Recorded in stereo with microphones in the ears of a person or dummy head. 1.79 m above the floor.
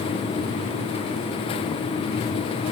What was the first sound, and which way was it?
Only background noise.